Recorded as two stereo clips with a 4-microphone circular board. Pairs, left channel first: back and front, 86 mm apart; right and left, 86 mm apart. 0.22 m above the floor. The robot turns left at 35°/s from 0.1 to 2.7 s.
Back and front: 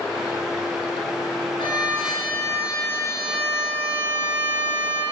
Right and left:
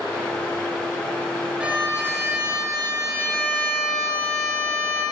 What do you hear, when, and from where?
1.6 s a violin: 165° left, 2.5 m; by 5.0 s 125° left, 2.5 m